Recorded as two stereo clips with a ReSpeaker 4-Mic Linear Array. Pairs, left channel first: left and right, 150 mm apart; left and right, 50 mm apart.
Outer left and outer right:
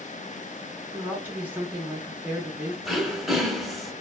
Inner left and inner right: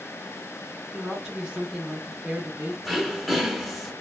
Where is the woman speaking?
10° right (ahead or behind), 0.7 m.